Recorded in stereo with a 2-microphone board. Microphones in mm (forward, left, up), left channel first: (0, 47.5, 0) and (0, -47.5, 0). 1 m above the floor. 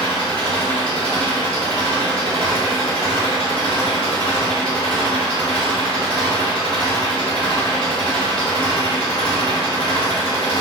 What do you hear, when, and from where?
0.0 s an engine running: 65° left (ahead or behind), 2.0 m